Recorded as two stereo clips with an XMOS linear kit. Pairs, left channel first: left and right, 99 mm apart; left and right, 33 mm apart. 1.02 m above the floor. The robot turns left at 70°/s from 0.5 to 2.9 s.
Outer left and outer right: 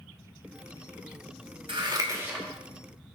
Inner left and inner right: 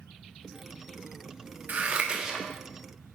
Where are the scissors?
60° right (ahead or behind), 1.5 m; by 2.5 s 5° right (ahead or behind), 1.5 m.